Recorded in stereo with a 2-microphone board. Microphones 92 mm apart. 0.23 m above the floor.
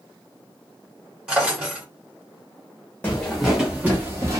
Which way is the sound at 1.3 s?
10° right (ahead or behind).